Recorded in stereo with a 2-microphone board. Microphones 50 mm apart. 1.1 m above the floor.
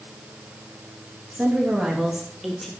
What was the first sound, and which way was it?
A woman speaking, 30° right (ahead or behind).